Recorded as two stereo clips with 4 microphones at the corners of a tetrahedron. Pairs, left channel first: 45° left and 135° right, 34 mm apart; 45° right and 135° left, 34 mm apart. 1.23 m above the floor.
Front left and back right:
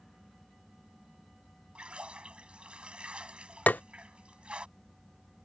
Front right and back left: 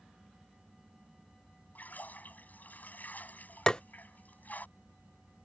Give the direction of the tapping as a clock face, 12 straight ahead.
11 o'clock.